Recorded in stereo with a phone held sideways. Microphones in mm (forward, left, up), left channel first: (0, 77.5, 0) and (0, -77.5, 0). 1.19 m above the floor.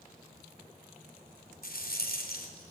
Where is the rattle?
75° left (ahead or behind), 3.5 m.